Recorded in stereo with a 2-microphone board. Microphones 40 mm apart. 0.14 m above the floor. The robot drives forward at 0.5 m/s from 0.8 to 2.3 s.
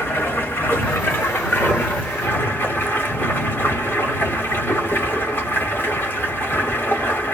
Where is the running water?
85° left, 2.5 m; by 7.4 s 70° left (ahead or behind), 2.5 m.